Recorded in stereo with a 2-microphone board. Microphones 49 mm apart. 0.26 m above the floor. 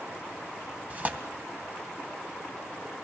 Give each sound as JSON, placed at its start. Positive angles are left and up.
{"t": 0.9, "sound": "tearing paper", "side_deg": -30, "distance_m": 2.0}